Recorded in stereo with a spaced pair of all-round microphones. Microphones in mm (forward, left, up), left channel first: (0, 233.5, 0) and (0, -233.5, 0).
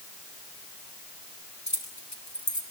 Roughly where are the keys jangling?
Left.